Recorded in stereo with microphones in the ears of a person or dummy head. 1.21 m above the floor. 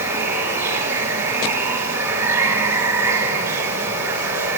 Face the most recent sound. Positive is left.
turn(degrees=-20)  # may be behind; listen again after turning